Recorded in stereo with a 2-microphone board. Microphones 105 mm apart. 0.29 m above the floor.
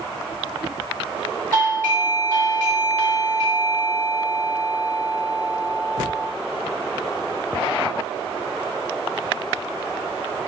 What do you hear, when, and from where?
1.5 s a doorbell: 15° left (ahead or behind), 2 m